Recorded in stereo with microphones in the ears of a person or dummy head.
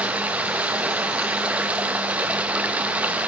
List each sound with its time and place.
0.0 s running water: 10° right (ahead or behind), 0.7 m